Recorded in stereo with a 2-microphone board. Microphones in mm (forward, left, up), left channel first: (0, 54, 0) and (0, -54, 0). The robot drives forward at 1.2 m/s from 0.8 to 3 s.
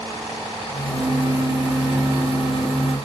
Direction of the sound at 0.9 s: 30° right (ahead or behind).